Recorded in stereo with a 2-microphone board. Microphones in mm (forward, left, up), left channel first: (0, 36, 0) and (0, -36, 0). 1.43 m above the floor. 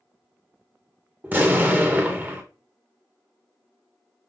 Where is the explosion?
25° right (ahead or behind), 0.8 m.